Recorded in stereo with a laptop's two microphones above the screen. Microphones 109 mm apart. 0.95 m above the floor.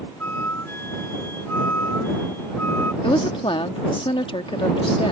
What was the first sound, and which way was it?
A flute, 20° left (ahead or behind).